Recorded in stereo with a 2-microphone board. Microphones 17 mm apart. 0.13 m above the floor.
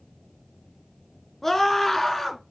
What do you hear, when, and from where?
1.4 s a scream: 15° left (ahead or behind), 1.8 m